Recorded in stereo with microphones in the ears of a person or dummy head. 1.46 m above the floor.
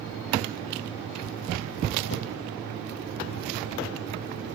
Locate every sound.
2.1 s a whoosh: 65° left (ahead or behind), 1.7 m